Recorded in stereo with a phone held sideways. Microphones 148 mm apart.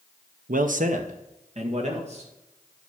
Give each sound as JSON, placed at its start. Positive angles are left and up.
{"t": 0.5, "sound": "a man speaking", "side_deg": -70, "distance_m": 0.9}